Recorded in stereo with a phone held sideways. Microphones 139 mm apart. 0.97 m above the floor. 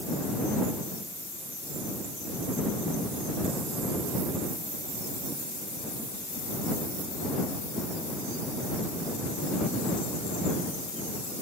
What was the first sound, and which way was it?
Only background noise.